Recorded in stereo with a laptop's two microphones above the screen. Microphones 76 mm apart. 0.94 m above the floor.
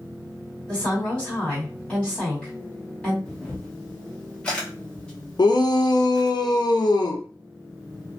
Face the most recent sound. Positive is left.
turn(degrees=65)  # may be behind; listen again after turning